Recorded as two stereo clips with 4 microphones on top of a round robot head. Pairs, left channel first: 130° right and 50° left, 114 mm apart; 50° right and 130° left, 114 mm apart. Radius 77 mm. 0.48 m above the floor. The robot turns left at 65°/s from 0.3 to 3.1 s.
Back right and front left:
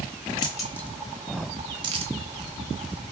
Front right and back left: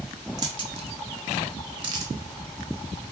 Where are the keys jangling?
175° right, 1.0 m; by 3.1 s 5° left, 1.0 m.